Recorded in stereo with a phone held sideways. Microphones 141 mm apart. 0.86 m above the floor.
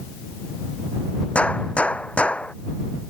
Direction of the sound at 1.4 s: 10° left (ahead or behind).